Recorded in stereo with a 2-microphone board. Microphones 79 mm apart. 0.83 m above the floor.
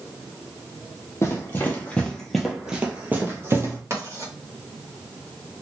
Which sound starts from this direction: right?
Writing, at 3.9 s.